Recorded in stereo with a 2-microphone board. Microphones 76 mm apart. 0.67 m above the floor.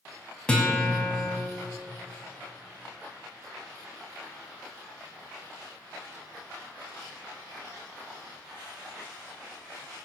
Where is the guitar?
15° left (ahead or behind), 3.5 m.